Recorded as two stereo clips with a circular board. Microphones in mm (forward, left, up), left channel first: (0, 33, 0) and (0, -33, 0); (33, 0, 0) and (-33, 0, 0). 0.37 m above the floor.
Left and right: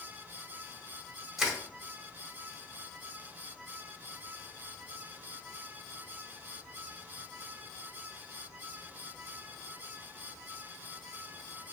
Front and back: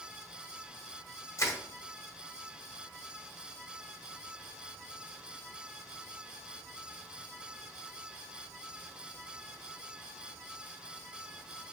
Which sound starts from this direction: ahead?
Crushing, at 1.4 s.